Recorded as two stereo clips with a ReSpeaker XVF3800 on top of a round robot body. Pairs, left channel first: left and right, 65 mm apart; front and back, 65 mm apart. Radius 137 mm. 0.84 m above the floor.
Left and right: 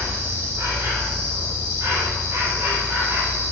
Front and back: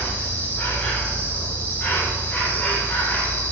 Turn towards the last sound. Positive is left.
turn(degrees=-55)